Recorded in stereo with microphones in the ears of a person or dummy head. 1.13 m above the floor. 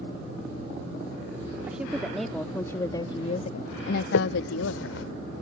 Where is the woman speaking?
10° right (ahead or behind); by 5.0 s 85° left.